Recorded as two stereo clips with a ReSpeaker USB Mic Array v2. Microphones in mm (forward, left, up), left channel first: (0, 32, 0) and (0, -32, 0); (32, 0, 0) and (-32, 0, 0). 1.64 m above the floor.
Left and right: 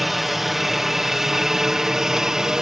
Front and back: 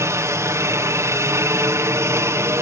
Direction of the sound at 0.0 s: 175° right.